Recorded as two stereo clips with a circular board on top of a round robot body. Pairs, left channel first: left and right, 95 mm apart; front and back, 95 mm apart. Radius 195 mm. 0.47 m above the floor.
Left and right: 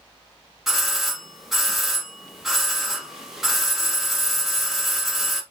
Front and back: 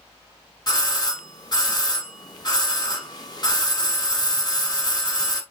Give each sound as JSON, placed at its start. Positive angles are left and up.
{"t": 0.7, "sound": "a doorbell", "azimuth_deg": -5, "distance_m": 1.6}